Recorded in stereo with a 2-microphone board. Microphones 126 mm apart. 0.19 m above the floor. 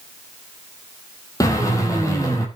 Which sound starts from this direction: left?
A drill, at 1.4 s.